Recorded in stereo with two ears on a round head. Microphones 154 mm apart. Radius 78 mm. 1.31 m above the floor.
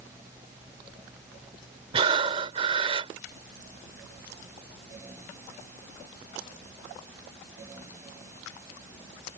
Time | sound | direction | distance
1.9 | breathing | 30° right (ahead or behind) | ?